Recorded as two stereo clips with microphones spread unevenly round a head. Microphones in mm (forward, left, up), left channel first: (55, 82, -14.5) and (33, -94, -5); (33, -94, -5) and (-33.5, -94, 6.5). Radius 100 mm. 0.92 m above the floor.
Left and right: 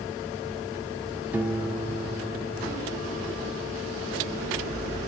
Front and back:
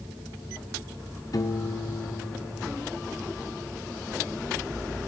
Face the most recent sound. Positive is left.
turn(degrees=-25)